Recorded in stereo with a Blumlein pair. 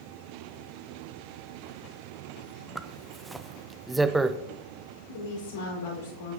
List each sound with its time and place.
2.8 s a zipper: 5° right, 0.7 m
5.1 s a woman speaking: 60° left, 5.5 m